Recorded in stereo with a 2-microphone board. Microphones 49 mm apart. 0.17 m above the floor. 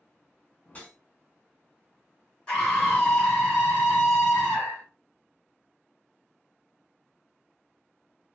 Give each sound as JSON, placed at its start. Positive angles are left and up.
{"t": 0.7, "sound": "a whoosh", "side_deg": 30, "distance_m": 1.0}
{"t": 2.5, "sound": "a scream", "side_deg": 20, "distance_m": 1.1}